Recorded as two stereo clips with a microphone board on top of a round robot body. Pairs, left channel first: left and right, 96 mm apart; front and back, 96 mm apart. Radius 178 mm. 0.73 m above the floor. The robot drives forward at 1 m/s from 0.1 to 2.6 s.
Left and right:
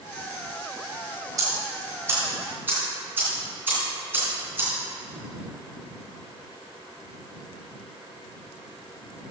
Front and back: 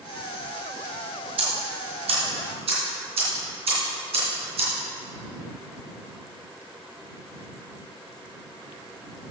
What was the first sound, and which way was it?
Ticking, 145° right.